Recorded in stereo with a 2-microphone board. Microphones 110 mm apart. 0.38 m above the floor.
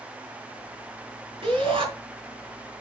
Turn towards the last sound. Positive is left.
turn(degrees=-55)  # may be behind; listen again after turning